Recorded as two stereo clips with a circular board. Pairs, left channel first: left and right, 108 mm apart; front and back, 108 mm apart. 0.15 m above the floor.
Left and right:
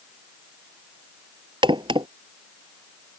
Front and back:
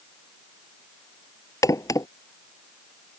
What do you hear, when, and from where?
1.6 s a crack: 55° right